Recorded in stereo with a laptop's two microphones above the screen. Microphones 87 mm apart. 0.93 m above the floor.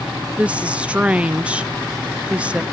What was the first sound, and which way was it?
A woman speaking, 15° right (ahead or behind).